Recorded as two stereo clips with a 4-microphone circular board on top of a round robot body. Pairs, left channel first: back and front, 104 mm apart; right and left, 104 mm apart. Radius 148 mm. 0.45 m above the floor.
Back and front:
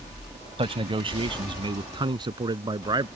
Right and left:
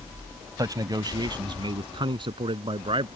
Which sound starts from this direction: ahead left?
A man speaking, at 0.6 s.